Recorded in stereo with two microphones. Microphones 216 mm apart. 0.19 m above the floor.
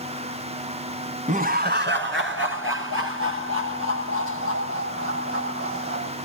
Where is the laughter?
35° right (ahead or behind), 1.3 m; by 6.1 s 80° right, 7.5 m.